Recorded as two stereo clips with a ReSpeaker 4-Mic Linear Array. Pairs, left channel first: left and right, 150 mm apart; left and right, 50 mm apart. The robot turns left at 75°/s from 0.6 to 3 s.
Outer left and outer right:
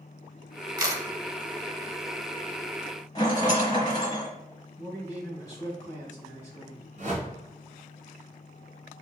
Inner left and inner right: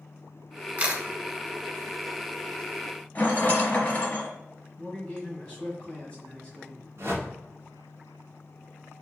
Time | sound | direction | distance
0.8 | a camera shutter | 30° right (ahead or behind) | 0.9 m
3.1 | a rattle | 30° left (ahead or behind) | 1.2 m
4.8 | a man speaking | 25° left (ahead or behind) | 1.7 m
7.0 | a whoosh | 60° right (ahead or behind) | 1.3 m